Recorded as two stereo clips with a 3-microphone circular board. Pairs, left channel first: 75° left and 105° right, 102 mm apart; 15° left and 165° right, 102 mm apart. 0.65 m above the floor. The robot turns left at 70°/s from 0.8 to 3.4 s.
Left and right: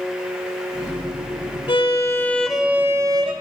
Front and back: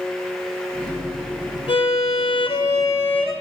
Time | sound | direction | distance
1.7 | a violin | 45° left | 2 m